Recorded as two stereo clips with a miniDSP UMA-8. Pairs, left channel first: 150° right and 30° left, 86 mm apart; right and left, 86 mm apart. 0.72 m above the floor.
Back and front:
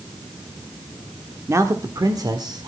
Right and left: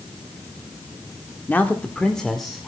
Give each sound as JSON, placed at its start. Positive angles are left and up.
{"t": 1.5, "sound": "a man speaking", "azimuth_deg": -25, "distance_m": 1.4}